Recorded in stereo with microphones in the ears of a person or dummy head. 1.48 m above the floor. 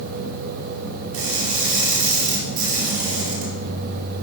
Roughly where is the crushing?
Right.